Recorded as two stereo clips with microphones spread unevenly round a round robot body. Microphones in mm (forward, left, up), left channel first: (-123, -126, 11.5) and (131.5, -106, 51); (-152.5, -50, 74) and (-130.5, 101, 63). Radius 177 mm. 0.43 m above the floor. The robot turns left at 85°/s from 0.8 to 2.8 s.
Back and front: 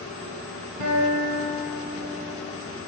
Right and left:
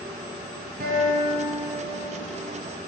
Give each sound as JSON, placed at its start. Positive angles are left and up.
{"t": 0.8, "sound": "a guitar", "azimuth_deg": 45, "distance_m": 2.0}